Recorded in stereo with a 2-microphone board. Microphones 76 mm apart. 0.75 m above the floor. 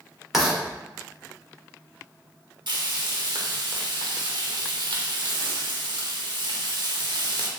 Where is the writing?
Centre (ahead or behind), 1.1 m.